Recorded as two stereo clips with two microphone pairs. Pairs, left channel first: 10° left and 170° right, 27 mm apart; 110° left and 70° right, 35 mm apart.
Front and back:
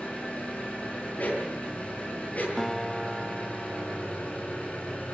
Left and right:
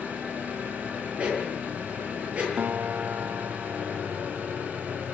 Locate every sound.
0.0 s an engine running: 25° right, 8 m
1.2 s a dog barking: 10° right, 8 m
2.6 s a guitar: 70° right, 1.1 m